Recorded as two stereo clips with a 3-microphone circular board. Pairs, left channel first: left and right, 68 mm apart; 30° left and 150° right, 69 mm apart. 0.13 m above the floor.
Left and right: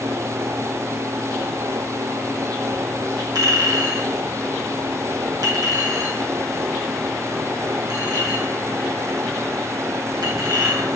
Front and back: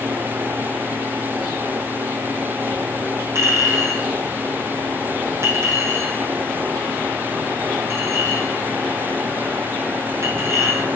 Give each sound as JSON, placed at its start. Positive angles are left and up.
{"t": 3.4, "sound": "a clink", "azimuth_deg": -105, "distance_m": 3.0}